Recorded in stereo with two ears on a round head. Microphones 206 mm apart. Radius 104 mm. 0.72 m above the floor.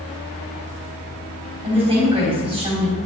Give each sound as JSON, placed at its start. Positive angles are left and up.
{"t": 1.6, "sound": "a woman speaking", "side_deg": -20, "distance_m": 4.0}